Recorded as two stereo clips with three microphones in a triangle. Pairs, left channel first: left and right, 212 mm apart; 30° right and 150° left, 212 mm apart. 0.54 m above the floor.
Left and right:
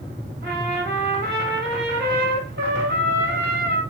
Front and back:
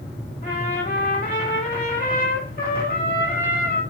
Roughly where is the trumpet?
Ahead right.